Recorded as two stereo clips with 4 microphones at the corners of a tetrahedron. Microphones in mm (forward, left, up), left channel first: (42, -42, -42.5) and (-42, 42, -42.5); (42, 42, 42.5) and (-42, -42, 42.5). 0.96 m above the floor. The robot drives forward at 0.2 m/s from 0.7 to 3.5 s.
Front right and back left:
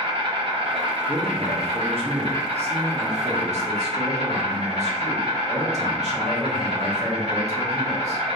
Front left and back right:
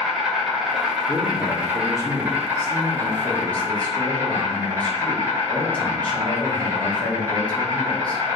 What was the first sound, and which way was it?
An insect, 140° left.